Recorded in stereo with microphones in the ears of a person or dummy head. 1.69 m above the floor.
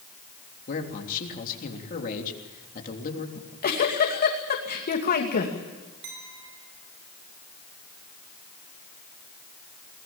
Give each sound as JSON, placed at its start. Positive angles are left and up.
{"t": 0.7, "sound": "a man speaking", "side_deg": 40, "distance_m": 3.5}
{"t": 3.4, "sound": "a giggle", "side_deg": 45, "distance_m": 2.5}
{"t": 6.0, "sound": "a clink", "side_deg": -70, "distance_m": 4.5}